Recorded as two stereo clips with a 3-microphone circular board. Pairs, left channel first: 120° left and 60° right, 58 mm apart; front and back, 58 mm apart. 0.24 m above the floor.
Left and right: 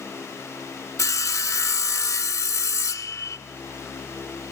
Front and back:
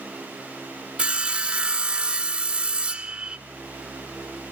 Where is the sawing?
110° left, 1.0 m.